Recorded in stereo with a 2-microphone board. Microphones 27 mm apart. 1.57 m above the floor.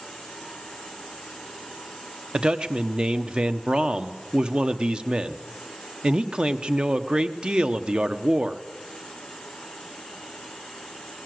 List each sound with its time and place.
2.3 s a man speaking: 35° right (ahead or behind), 1.0 m